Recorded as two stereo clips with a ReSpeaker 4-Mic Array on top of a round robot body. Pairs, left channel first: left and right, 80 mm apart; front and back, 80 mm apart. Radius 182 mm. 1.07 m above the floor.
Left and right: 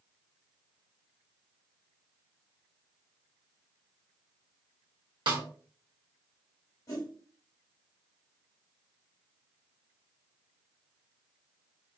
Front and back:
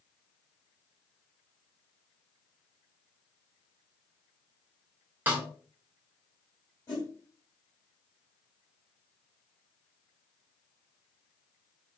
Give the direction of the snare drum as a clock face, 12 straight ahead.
4 o'clock.